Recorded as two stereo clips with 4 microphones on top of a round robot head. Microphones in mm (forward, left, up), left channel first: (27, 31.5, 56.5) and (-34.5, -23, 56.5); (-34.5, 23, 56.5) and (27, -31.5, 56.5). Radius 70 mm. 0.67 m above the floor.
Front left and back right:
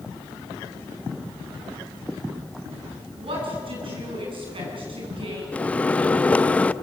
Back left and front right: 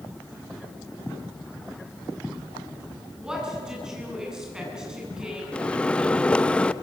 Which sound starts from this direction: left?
A microwave, at 5.5 s.